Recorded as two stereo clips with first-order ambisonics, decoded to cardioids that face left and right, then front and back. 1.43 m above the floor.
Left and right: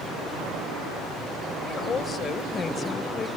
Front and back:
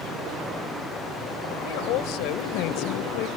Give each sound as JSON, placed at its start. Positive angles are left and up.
{"t": 1.6, "sound": "a woman speaking", "azimuth_deg": 20}